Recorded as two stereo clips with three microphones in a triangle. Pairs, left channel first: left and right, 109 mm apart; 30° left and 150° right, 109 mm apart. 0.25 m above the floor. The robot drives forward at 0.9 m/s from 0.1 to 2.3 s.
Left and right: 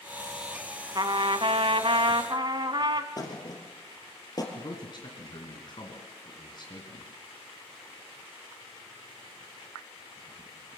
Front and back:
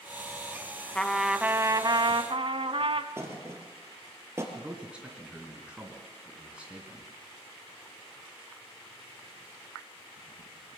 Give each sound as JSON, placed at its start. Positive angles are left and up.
{"t": 0.9, "sound": "a trumpet", "azimuth_deg": -50, "distance_m": 1.0}
{"t": 3.2, "sound": "a thud", "azimuth_deg": 145, "distance_m": 3.0}
{"t": 4.5, "sound": "a man speaking", "azimuth_deg": 130, "distance_m": 2.5}